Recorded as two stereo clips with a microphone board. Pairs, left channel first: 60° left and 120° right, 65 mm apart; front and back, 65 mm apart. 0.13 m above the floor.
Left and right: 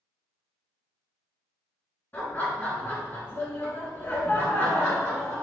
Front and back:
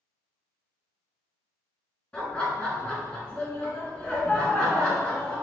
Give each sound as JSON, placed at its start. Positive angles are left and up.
{"t": 2.1, "sound": "laughter", "azimuth_deg": 55, "distance_m": 1.2}